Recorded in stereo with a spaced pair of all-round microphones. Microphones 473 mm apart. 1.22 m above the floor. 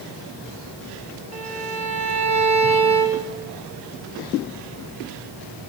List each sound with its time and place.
1.3 s a violin: 35° right (ahead or behind), 2 m